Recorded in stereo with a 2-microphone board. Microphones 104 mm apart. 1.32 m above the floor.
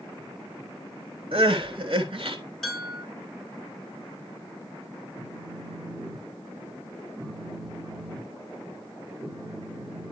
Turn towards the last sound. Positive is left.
turn(degrees=5)  # may be behind; listen again after turning